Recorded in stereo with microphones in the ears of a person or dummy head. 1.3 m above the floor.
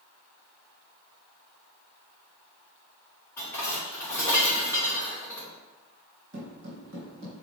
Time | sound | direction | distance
3.4 | dishes clattering | 15° left (ahead or behind) | 2.5 m
6.3 | footsteps | 50° right (ahead or behind) | 2.0 m